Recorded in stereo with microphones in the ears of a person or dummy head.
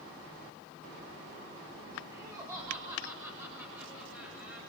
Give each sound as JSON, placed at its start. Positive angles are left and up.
{"t": 2.1, "sound": "laughter", "side_deg": -20, "distance_m": 6.5}